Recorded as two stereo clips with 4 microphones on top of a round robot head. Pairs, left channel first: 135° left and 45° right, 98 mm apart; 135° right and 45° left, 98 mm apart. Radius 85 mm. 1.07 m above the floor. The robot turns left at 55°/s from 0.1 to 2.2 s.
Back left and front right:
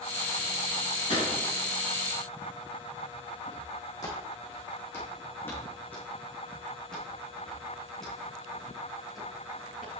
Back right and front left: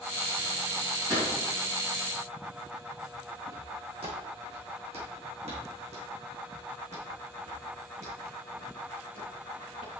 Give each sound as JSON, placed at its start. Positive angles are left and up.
{"t": 1.1, "sound": "a gunshot", "azimuth_deg": 100, "distance_m": 4.0}
{"t": 3.5, "sound": "footsteps", "azimuth_deg": 85, "distance_m": 3.5}